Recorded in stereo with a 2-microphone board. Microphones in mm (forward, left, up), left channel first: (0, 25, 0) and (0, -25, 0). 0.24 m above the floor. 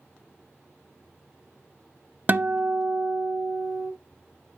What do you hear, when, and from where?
2.3 s a guitar: 40° right (ahead or behind), 0.5 m